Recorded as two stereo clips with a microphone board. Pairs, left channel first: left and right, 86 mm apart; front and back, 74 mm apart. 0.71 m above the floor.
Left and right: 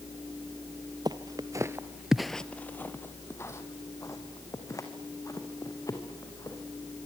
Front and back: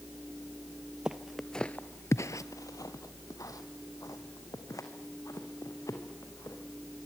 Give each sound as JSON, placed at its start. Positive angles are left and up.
{"t": 1.1, "sound": "footsteps", "azimuth_deg": -105, "distance_m": 1.1}